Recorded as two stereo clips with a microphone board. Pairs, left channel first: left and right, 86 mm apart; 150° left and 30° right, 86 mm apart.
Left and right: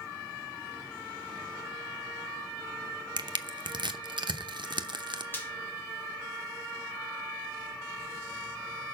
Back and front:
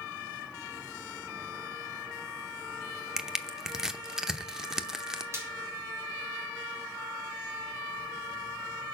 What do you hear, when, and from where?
3.2 s crushing: 115° right, 0.8 m
5.3 s frying: 25° left, 2.5 m